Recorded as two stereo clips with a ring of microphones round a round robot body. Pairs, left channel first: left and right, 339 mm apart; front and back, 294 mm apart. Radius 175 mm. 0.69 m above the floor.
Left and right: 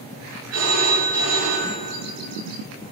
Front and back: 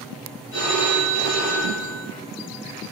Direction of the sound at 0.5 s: 60° right.